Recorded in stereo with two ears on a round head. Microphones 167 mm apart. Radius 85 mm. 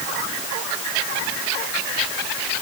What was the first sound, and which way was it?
Only background noise.